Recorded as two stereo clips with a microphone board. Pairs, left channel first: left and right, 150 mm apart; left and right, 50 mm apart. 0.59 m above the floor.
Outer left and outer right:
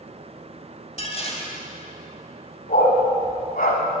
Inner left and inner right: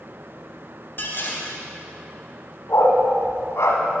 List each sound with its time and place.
1.0 s dishes clattering: 45° left (ahead or behind), 2 m
2.7 s a dog barking: 75° left (ahead or behind), 1.5 m